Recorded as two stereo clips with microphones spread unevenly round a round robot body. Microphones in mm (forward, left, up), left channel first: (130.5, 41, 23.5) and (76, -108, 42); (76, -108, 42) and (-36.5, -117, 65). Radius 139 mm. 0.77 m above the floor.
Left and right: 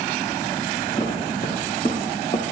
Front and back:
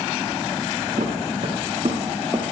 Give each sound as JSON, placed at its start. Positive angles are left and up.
{"t": 1.0, "sound": "footsteps", "azimuth_deg": 140, "distance_m": 2.5}